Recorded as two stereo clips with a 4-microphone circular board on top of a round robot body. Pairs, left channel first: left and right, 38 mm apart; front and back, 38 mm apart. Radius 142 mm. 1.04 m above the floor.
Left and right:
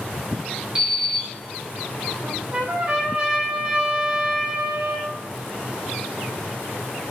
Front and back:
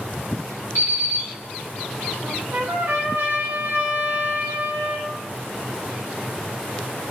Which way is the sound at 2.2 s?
150° right.